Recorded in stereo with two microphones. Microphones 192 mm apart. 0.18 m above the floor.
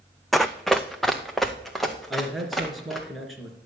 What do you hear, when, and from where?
0.3 s running footsteps: centre (ahead or behind), 0.6 m
2.1 s a man speaking: centre (ahead or behind), 3 m